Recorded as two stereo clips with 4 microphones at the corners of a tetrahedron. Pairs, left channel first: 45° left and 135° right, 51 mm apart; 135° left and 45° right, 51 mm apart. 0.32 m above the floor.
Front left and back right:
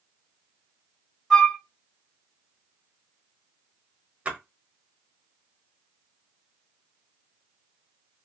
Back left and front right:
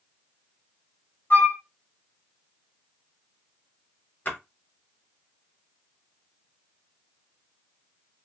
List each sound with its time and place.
1.3 s a flute: 130° left, 1.2 m
4.2 s a splash: 170° left, 0.8 m